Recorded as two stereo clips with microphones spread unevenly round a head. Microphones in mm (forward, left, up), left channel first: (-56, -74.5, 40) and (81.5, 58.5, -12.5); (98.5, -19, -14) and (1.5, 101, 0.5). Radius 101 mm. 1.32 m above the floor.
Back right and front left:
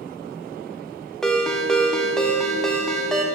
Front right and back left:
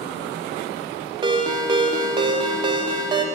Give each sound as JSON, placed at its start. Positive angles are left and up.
{"t": 1.2, "sound": "a ringtone", "azimuth_deg": 160, "distance_m": 0.6}